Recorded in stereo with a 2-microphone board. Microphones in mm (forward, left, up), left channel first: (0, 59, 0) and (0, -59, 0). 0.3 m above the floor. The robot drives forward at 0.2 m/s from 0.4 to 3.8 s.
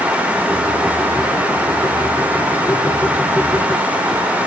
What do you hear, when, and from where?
Only background noise.